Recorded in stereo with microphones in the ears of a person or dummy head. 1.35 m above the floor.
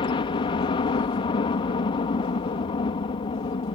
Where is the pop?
No pop in this recording.